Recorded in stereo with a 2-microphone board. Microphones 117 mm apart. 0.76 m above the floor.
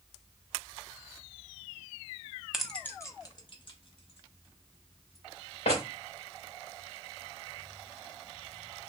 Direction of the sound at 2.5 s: 5° right (ahead or behind).